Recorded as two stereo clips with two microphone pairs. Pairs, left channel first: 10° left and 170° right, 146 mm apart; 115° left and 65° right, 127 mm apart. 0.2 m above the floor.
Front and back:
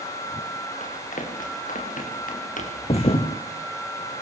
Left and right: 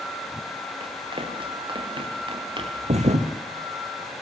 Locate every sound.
0.8 s running footsteps: 20° right, 7 m; by 2.7 s 15° right, 8 m
2.8 s a thud: 35° right, 2.5 m